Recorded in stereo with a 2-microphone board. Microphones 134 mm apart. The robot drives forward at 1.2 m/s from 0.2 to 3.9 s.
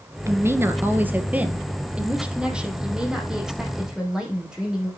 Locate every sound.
0.3 s a woman speaking: 20° right (ahead or behind), 1.3 m; by 4.9 s 5° right (ahead or behind), 5 m